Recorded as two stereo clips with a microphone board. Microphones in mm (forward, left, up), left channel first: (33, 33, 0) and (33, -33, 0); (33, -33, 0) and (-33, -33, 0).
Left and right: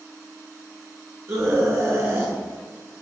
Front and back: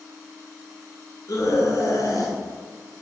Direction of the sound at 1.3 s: 45° right.